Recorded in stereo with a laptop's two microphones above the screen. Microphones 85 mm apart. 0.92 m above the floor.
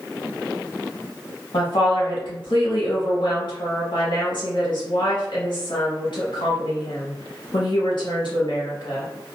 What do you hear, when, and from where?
1.5 s a woman speaking: 65° left (ahead or behind), 1.4 m